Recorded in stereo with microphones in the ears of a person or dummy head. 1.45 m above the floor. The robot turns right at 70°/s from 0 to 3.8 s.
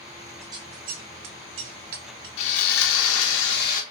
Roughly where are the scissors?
Centre.